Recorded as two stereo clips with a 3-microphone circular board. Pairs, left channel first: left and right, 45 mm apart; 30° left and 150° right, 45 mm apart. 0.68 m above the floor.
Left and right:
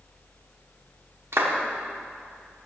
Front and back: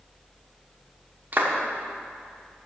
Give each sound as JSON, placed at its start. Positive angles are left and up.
{"t": 1.3, "sound": "a clap", "azimuth_deg": -105, "distance_m": 1.0}